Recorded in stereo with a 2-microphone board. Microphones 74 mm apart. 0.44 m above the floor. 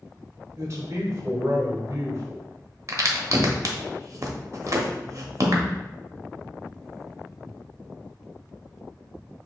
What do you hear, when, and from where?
0.6 s a man speaking: 40° right (ahead or behind), 1.1 m
2.9 s a crack: 45° right (ahead or behind), 0.8 m